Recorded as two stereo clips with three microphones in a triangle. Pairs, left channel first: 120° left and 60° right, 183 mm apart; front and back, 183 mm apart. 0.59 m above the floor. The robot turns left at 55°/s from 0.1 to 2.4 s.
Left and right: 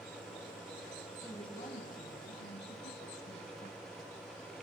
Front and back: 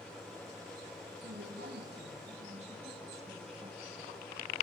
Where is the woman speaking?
165° right, 5.5 m; by 3.8 s 130° left, 5.5 m.